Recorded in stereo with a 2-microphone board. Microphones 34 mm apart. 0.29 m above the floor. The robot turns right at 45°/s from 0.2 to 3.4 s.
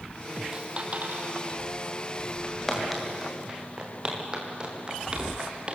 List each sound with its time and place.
0.5 s a dropped coin: 20° right (ahead or behind), 3.5 m; by 1.4 s 60° right (ahead or behind), 3.5 m
2.4 s footsteps: 25° left (ahead or behind), 7.5 m; by 5.8 s 30° right (ahead or behind), 5 m